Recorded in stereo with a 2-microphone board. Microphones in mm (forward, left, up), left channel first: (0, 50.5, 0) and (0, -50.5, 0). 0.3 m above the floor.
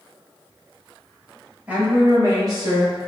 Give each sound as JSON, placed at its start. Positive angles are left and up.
{"t": 1.7, "sound": "a woman speaking", "side_deg": -15, "distance_m": 1.0}